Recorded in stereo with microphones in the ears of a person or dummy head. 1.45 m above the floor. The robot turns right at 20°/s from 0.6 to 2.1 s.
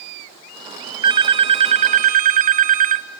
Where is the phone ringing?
25° right (ahead or behind), 0.8 m; by 3.1 s 40° right (ahead or behind), 0.8 m.